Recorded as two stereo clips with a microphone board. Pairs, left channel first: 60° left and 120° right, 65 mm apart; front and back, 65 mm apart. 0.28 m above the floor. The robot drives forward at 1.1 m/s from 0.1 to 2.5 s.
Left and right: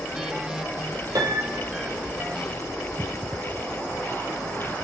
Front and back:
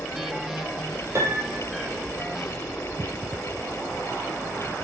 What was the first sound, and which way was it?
A piano, 140° right.